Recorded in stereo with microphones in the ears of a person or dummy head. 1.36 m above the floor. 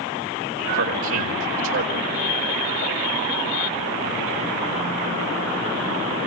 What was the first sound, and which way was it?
A man speaking, 75° right (ahead or behind).